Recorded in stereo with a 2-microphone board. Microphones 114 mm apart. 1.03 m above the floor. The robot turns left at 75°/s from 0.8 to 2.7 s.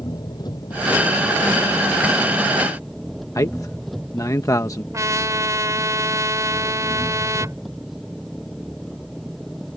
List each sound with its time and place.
0.0 s an engine running: 145° left; by 9.8 s straight ahead
3.4 s a man speaking: 30° left (ahead or behind)
4.9 s a trumpet: 30° right (ahead or behind)